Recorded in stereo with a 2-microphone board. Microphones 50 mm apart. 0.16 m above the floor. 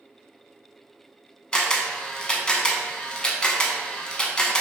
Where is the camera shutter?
20° left (ahead or behind), 0.5 m.